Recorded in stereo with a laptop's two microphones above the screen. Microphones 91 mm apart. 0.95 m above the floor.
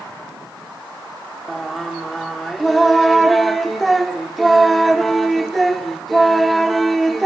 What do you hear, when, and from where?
1.5 s singing: centre (ahead or behind), 1.0 m